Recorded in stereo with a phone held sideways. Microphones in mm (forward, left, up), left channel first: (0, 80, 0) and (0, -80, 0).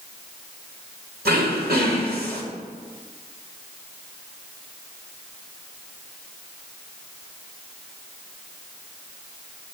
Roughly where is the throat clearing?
Right.